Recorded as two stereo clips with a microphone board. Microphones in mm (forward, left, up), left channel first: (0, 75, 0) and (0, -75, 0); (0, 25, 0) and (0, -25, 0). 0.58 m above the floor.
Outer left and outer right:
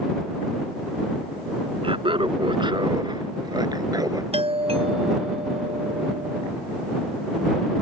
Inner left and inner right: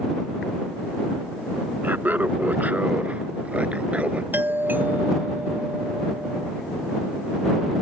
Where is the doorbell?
40° right (ahead or behind).